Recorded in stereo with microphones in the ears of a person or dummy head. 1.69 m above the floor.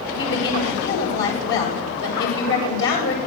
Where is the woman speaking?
60° left (ahead or behind), 9 m.